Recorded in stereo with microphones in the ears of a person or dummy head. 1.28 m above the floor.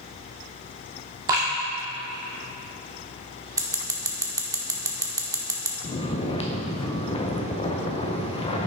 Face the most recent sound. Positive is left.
turn(degrees=30)  # may be behind; listen again after turning